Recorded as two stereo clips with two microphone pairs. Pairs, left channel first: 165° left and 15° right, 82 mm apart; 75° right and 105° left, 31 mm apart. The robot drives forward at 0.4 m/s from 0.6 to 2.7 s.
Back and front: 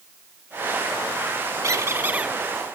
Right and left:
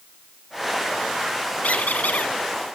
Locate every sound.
1.6 s a squeak: 55° right, 0.5 m; by 2.4 s 90° right, 0.5 m